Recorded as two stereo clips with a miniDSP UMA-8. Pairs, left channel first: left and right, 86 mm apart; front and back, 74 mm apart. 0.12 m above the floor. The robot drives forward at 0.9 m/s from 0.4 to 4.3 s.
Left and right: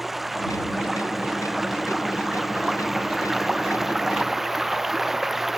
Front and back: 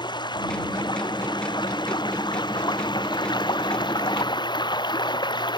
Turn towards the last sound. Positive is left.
turn(degrees=-5)